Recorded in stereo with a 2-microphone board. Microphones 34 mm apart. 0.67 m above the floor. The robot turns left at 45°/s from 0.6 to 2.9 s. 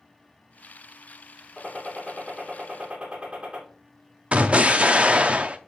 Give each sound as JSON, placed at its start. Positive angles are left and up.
{"t": 1.6, "sound": "a gunshot", "azimuth_deg": 15, "distance_m": 2.0}
{"t": 4.3, "sound": "an explosion", "side_deg": -40, "distance_m": 0.5}